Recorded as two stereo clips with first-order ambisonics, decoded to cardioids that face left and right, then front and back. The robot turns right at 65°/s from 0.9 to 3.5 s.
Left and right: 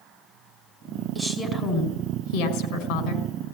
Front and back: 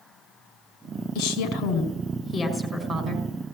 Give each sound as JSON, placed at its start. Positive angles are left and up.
{"t": 1.1, "sound": "a woman speaking", "azimuth_deg": 0, "distance_m": 4.5}